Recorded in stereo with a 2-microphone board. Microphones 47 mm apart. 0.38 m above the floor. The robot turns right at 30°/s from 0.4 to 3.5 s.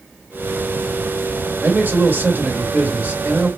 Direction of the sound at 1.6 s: 100° right.